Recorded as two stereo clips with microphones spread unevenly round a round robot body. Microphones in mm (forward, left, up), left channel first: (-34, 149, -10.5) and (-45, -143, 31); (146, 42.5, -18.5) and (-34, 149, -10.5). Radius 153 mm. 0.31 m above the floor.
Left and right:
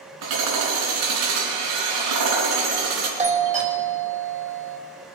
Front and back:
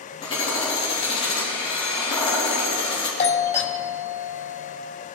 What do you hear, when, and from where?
0.2 s hammering: 105° right, 4 m
3.2 s a doorbell: 30° right, 2 m